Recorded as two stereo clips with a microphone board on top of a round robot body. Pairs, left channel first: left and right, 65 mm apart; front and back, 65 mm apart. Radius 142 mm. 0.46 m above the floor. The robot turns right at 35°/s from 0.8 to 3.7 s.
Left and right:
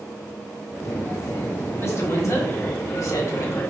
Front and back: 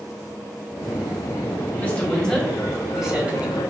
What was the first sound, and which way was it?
A woman speaking, 60° left.